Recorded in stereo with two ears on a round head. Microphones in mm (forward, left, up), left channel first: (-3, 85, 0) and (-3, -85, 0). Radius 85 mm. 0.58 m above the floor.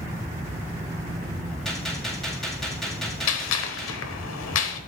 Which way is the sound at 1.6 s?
5° left (ahead or behind).